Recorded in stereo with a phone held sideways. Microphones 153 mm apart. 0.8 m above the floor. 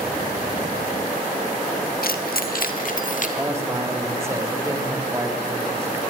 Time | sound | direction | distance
2.0 | keys jangling | 75° left (ahead or behind) | 1.4 m
3.4 | a man speaking | 15° right (ahead or behind) | 3 m